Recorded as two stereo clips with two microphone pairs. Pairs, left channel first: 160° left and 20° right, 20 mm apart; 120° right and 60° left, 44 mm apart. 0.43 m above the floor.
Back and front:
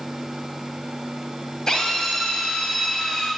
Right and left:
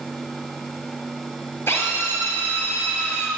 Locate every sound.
1.7 s a drill: 150° right, 6 m